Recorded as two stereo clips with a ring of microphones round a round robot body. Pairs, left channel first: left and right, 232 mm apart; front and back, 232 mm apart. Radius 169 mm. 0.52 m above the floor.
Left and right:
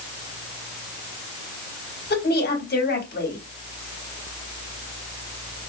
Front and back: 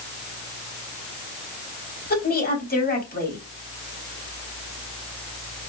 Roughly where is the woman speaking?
Ahead left.